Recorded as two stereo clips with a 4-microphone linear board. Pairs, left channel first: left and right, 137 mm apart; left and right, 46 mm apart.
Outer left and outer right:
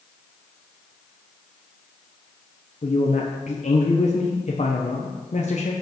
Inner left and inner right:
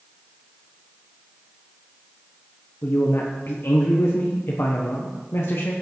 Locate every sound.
2.8 s a man speaking: 60° left (ahead or behind), 1.2 m